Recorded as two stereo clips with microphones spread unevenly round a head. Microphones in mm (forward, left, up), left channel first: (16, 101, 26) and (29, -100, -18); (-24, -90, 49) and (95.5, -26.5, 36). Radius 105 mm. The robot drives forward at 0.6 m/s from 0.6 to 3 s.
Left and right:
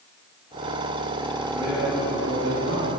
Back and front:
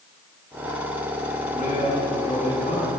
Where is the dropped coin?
No dropped coin in this recording.